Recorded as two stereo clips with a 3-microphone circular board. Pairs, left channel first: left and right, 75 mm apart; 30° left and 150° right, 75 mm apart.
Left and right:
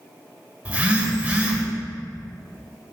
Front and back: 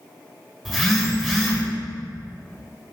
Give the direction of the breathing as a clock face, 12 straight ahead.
I don't hear breathing.